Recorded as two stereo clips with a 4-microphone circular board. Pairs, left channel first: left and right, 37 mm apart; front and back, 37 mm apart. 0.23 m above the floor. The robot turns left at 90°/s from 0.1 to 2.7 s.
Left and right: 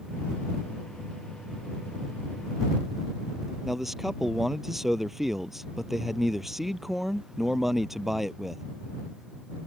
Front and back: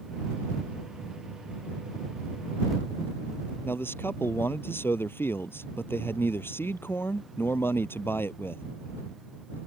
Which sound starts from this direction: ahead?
A man speaking, at 3.6 s.